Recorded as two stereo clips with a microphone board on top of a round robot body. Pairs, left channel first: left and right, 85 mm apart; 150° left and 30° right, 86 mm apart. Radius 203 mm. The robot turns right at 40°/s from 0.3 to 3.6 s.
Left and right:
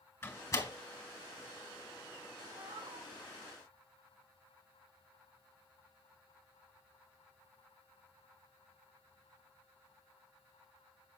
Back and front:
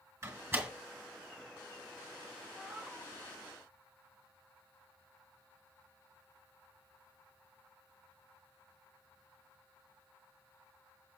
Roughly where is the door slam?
Ahead left.